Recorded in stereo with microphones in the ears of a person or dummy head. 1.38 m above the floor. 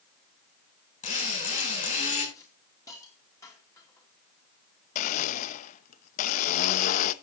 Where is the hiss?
20° left (ahead or behind), 3 m.